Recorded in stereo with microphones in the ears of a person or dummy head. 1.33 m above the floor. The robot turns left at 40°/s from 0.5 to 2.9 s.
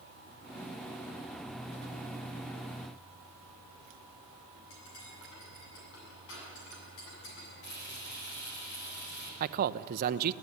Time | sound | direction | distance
4.7 | cutlery clinking | 75° left (ahead or behind) | 7.5 m
7.6 | frying | 60° left (ahead or behind) | 6.5 m
9.4 | a man speaking | 50° right (ahead or behind) | 0.7 m